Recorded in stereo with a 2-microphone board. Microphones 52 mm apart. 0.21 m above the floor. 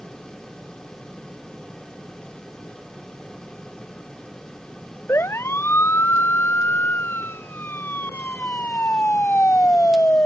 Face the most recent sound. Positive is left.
turn(degrees=35)  # may be behind; listen again after turning